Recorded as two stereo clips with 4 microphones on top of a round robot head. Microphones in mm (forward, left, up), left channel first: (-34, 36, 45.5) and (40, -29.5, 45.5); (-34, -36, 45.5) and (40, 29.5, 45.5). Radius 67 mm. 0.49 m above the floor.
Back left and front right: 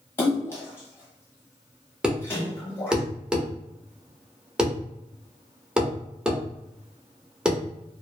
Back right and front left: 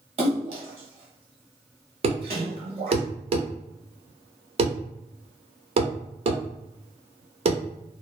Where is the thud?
40° left, 0.7 m.